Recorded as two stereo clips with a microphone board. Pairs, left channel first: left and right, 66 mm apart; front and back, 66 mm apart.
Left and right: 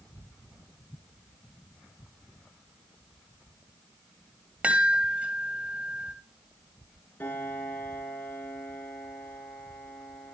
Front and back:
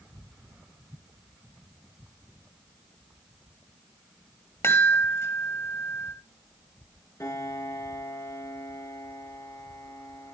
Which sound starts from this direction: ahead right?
A chime, at 4.6 s.